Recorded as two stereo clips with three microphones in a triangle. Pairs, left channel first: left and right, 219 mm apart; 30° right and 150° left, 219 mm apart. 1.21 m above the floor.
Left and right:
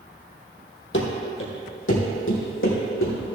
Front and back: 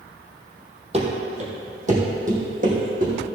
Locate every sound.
0.9 s running footsteps: 95° left, 2.5 m; by 3.1 s 100° left, 4 m